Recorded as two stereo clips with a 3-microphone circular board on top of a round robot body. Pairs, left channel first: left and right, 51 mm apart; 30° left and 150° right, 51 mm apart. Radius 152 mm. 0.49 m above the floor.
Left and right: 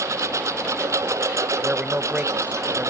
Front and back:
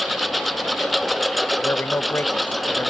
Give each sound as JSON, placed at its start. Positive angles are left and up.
{"t": 0.0, "sound": "a lawn mower", "azimuth_deg": -60}
{"t": 1.6, "sound": "a man speaking", "azimuth_deg": -20}